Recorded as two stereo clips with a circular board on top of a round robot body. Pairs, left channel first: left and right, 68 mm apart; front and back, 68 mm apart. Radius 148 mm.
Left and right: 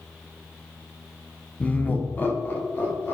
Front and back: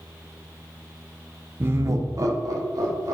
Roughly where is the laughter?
Behind left.